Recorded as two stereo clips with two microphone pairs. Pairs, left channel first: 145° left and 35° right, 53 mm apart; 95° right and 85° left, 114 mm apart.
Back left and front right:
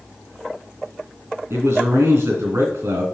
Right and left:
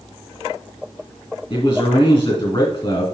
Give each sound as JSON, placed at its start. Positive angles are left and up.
{"t": 1.5, "sound": "a man speaking", "azimuth_deg": -45, "distance_m": 3.0}